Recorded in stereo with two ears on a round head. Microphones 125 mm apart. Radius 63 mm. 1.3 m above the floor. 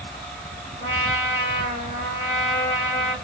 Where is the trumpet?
45° left (ahead or behind), 2 m.